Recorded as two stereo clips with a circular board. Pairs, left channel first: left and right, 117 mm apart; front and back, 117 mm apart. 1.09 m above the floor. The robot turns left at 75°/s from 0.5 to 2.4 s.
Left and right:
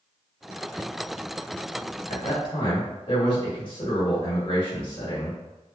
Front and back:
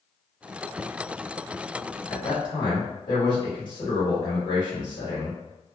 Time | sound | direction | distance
2.1 | a man speaking | 70° left | 1.5 m